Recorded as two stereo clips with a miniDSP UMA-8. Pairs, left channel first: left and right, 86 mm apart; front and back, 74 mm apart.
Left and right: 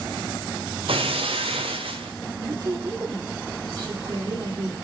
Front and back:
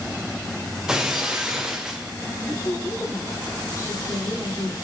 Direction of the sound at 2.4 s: 55° right.